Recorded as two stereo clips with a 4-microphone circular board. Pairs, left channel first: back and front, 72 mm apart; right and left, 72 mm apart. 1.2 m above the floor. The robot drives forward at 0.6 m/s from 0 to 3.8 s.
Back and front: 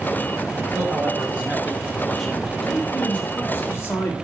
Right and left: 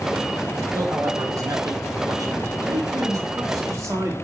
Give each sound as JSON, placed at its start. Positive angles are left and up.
{"t": 0.7, "sound": "a man speaking", "azimuth_deg": 50, "distance_m": 1.5}
{"t": 2.6, "sound": "a man speaking", "azimuth_deg": 105, "distance_m": 1.3}